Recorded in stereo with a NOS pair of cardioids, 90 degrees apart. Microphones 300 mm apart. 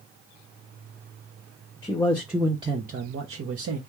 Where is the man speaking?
15° left, 0.9 m; by 3.8 s 55° right, 1.0 m.